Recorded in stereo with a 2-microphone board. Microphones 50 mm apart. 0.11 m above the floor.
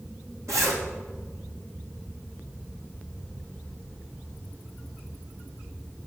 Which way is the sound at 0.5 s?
80° right.